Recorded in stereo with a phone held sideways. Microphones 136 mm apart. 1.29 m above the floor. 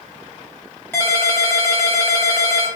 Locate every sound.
0.9 s a ringtone: 15° left (ahead or behind), 1.2 m